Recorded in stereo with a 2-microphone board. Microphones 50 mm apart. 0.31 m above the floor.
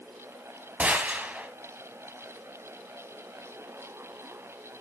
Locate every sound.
0.8 s a gunshot: 30° right (ahead or behind), 1.6 m